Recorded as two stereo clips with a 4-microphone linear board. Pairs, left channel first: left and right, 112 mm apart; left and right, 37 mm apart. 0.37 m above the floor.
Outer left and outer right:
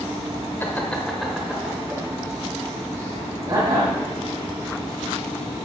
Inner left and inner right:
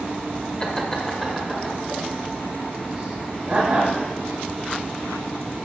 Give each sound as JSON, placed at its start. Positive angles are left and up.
{"t": 0.6, "sound": "laughter", "side_deg": 20, "distance_m": 1.2}